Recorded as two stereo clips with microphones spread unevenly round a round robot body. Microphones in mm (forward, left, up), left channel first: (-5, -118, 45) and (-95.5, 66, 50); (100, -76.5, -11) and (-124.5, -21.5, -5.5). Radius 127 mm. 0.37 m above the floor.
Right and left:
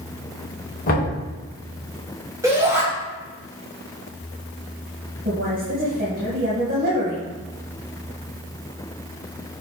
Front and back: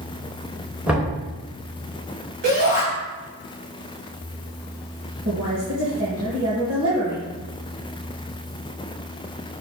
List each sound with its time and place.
0.9 s knocking: 110° right, 3.5 m
2.4 s a shout: 170° right, 3 m
5.2 s a woman speaking: 155° left, 2.5 m